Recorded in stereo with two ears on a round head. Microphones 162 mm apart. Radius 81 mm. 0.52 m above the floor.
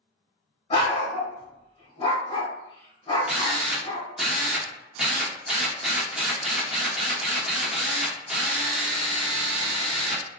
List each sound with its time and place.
0.7 s a dog barking: 30° left (ahead or behind), 1.2 m
3.3 s a drill: centre (ahead or behind), 0.8 m